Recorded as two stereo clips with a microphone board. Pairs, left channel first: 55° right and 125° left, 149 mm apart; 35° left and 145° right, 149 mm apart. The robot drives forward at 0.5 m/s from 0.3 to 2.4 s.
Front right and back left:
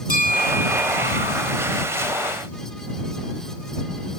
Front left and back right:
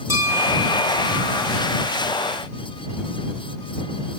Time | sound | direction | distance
0.1 | a bell | 75° right | 4.5 m